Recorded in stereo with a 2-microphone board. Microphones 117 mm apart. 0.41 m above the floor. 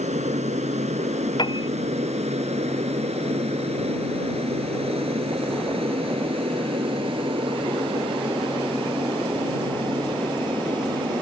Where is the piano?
40° left (ahead or behind).